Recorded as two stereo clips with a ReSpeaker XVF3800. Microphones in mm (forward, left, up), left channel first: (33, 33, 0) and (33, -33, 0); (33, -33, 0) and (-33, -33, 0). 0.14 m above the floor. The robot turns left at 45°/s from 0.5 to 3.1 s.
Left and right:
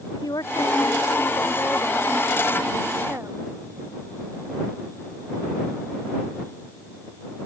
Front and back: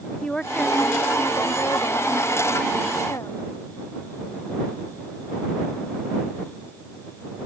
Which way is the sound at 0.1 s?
80° left.